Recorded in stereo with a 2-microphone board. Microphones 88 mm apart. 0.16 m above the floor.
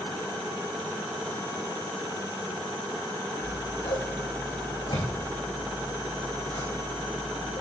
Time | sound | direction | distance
3.4 | scissors | 70° left (ahead or behind) | 4.5 m